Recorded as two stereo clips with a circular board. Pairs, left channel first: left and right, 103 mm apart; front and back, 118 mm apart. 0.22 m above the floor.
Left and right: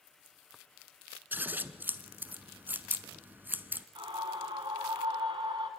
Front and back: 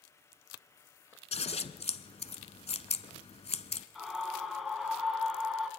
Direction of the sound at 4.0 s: 95° right.